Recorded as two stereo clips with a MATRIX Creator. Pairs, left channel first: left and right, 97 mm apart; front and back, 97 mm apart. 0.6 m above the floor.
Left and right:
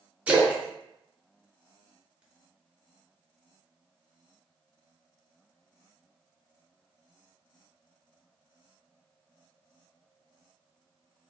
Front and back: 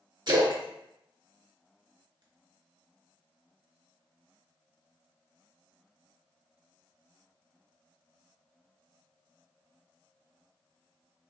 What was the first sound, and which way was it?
A splash, 160° right.